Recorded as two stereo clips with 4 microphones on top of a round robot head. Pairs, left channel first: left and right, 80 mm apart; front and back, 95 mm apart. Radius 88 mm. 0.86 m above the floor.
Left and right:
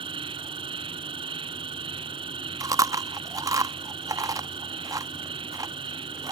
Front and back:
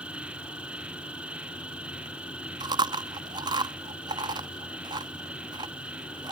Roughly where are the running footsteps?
No running footsteps in this recording.